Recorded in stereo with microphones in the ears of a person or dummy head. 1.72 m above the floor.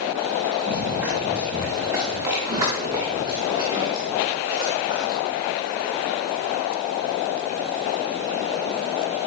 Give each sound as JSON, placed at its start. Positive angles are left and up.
{"t": 0.7, "sound": "running footsteps", "side_deg": -5, "distance_m": 6.0}